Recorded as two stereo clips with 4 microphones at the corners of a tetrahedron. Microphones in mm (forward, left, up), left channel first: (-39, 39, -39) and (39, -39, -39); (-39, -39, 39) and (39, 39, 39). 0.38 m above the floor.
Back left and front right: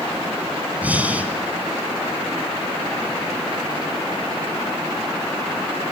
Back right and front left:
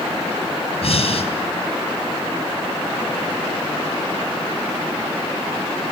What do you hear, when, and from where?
0.8 s breathing: 120° right, 3 m